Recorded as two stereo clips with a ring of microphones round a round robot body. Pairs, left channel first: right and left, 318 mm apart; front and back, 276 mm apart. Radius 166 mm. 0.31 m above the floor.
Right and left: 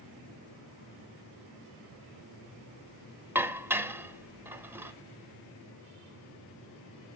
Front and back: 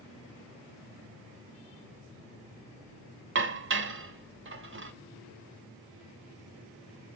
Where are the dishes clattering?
170° left, 0.9 m.